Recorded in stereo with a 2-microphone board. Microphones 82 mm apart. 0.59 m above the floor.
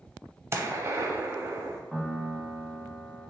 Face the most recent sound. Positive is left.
turn(degrees=0)  # may be behind; listen again after turning